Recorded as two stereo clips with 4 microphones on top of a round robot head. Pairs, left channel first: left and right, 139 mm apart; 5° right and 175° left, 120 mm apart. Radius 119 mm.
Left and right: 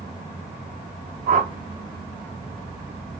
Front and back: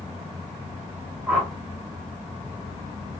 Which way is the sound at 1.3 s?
100° right.